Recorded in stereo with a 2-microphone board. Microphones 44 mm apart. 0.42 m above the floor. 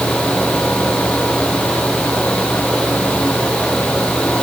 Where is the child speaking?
I don't hear a child speaking.